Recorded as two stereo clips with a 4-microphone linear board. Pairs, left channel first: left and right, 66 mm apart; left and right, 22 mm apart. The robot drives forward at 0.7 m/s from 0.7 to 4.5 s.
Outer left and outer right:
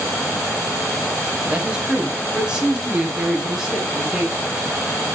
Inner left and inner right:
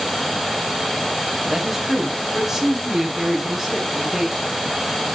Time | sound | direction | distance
1.4 | a man speaking | 20° right (ahead or behind) | 1.3 m